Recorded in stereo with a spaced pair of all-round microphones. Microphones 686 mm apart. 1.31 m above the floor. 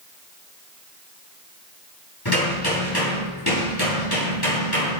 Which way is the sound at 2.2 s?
35° left (ahead or behind).